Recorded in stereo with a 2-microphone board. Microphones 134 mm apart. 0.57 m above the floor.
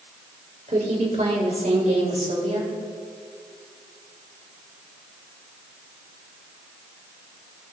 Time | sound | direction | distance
0.7 | a woman speaking | 65° right (ahead or behind) | 2 m